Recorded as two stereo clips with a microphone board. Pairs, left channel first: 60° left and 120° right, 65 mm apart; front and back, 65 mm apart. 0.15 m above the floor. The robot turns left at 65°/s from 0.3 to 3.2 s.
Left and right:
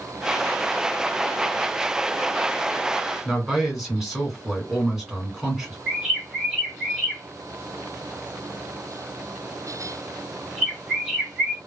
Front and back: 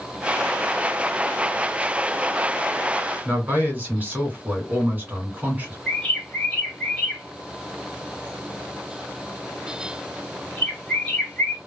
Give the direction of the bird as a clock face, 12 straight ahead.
2 o'clock.